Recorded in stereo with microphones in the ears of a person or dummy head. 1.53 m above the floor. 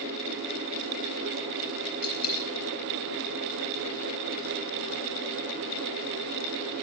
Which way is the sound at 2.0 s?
85° left.